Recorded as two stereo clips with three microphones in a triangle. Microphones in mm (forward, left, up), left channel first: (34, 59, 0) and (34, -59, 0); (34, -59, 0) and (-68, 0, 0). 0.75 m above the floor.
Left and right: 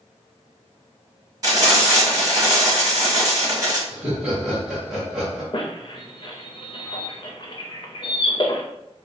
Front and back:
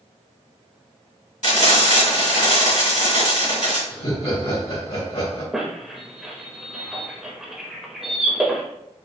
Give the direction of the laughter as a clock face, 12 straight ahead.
12 o'clock.